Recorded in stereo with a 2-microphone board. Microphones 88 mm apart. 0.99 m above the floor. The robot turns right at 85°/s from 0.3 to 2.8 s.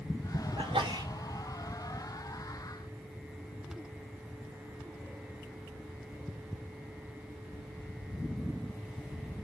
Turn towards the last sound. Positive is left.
turn(degrees=100)